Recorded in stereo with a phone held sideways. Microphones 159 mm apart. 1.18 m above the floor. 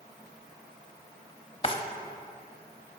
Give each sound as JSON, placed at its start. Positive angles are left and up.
{"t": 1.6, "sound": "a drawer", "side_deg": 35, "distance_m": 0.7}